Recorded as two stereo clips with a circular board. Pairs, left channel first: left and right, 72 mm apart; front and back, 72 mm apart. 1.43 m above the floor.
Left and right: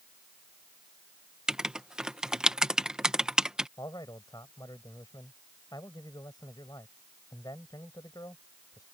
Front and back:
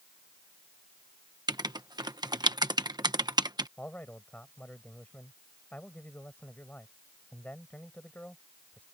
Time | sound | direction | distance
1.5 | writing | 170° right | ?
3.8 | a man speaking | 70° left | ?